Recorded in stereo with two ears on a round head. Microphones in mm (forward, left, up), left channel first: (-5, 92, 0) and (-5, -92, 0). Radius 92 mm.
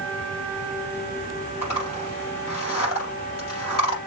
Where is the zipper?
80° left, 5 m.